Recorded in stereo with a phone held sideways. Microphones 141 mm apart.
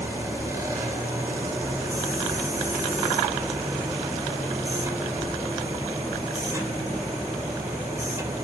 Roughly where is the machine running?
Right.